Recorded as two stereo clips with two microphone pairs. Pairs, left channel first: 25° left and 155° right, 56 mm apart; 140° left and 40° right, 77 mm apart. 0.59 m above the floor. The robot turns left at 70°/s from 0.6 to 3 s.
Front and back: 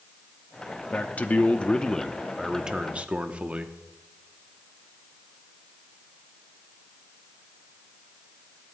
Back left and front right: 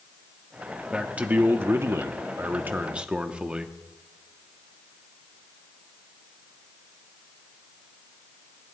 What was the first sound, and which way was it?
A man speaking, 40° left.